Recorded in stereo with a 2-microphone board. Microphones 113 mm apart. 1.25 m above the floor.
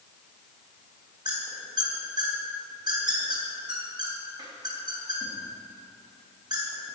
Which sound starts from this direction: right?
A squeak, at 1.2 s.